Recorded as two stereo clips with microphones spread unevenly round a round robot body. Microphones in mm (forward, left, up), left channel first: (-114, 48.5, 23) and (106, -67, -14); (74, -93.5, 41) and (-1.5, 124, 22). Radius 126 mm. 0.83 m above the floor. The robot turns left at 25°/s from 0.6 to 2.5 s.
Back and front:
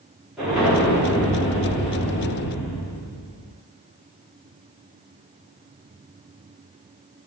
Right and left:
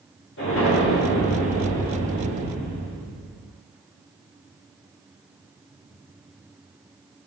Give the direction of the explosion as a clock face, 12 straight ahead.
4 o'clock.